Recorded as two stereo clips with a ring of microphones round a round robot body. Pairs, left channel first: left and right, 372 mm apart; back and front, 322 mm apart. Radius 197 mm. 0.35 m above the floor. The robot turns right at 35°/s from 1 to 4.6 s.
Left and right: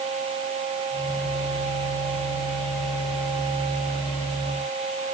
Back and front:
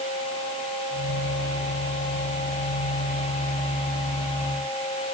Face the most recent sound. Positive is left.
No sound to turn to.